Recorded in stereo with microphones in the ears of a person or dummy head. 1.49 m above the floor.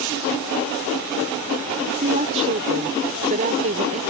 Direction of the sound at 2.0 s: 40° right (ahead or behind).